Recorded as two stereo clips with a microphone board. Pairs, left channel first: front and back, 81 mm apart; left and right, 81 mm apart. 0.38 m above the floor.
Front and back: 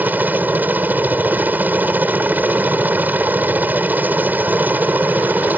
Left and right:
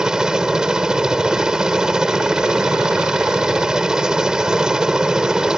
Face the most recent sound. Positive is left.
turn(degrees=-160)